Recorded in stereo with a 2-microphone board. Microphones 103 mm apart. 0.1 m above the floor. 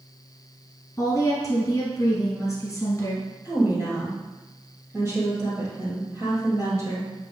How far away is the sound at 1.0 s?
About 1.6 m.